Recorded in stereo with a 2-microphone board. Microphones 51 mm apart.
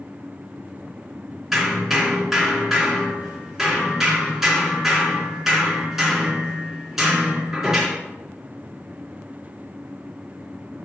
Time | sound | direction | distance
1.5 | hammering | 5° right (ahead or behind) | 3 m